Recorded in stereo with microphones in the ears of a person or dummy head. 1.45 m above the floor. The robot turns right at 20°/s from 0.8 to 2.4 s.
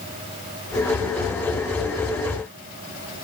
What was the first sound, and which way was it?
Only background noise.